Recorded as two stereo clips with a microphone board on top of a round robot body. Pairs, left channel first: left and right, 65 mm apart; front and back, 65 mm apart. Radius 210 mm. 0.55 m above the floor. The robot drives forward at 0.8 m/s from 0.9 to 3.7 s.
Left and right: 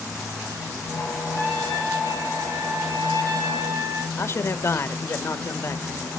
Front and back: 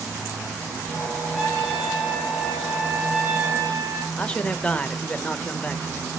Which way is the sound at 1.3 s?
95° right.